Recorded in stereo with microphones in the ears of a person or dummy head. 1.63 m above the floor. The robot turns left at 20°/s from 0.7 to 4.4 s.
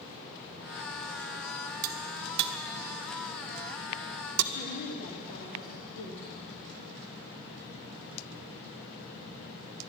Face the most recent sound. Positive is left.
turn(degrees=65)  # may be behind; listen again after turning